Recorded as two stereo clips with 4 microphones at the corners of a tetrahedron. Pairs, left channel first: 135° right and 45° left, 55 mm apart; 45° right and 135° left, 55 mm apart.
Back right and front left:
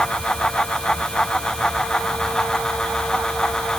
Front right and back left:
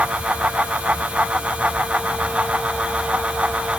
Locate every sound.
Only background noise.